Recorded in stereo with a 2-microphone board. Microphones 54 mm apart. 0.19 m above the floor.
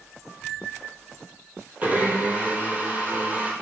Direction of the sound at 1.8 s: 30° right (ahead or behind).